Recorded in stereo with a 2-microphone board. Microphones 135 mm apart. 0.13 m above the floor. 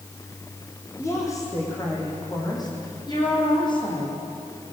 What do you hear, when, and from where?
1.0 s a woman speaking: 20° left (ahead or behind), 6.5 m; by 4.1 s 35° left (ahead or behind), 7.5 m